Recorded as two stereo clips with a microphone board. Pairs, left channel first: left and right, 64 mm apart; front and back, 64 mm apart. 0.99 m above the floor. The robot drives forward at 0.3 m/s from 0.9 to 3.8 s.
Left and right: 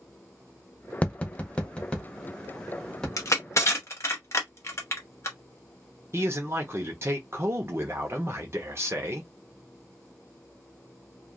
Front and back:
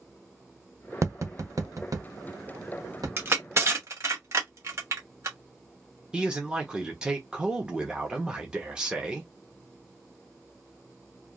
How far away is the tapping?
About 0.7 m.